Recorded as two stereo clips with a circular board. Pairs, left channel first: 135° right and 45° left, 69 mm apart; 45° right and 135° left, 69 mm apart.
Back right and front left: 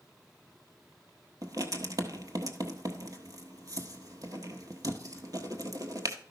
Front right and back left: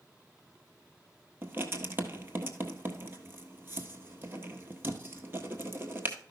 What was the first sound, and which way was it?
Writing, 80° left.